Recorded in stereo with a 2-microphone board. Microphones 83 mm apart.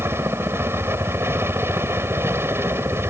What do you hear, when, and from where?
0.0 s a helicopter: 30° right (ahead or behind)